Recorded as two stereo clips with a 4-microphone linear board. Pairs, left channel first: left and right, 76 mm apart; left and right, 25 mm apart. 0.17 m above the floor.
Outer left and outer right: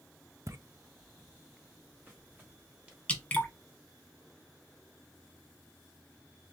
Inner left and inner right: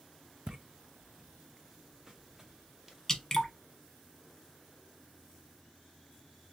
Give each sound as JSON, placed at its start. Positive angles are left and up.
{"t": 0.5, "sound": "footsteps", "side_deg": -40, "distance_m": 0.5}
{"t": 3.1, "sound": "dripping", "side_deg": 20, "distance_m": 1.1}